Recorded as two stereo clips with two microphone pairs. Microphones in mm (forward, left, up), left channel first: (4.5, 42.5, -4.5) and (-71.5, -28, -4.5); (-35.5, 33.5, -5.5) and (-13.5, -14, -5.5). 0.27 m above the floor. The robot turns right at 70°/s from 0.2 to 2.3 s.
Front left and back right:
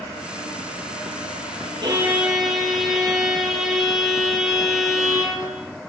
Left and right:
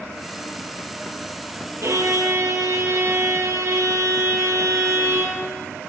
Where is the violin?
85° right, 7 m; by 5.4 s 50° right, 7 m.